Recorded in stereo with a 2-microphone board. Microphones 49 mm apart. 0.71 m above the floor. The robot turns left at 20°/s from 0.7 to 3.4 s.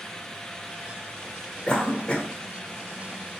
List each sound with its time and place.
1.7 s a cough: 15° left (ahead or behind), 0.6 m; by 2.3 s 20° left (ahead or behind), 0.6 m